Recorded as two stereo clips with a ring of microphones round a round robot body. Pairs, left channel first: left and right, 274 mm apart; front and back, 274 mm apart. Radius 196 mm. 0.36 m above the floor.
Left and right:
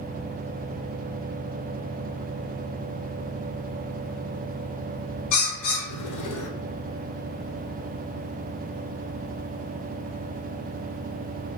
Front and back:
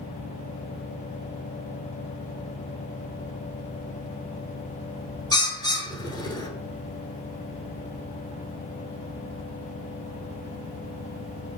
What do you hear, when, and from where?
5.3 s a bird: 75° left, 1.1 m